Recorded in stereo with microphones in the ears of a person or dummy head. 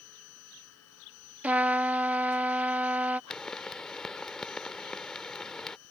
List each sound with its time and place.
0.0 s a machine running: 80° left
1.4 s a trumpet: 10° right (ahead or behind)
3.3 s a pop: 5° left (ahead or behind)